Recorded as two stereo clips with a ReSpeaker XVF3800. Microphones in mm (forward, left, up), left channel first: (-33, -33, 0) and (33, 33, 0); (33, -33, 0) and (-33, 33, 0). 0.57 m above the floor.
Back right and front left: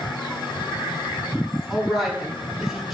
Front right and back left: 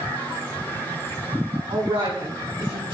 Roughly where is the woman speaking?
Behind left.